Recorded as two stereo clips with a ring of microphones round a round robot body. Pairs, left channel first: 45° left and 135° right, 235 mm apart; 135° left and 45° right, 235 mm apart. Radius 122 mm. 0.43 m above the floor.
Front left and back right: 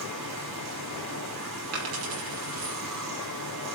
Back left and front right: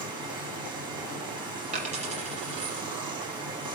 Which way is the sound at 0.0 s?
115° right.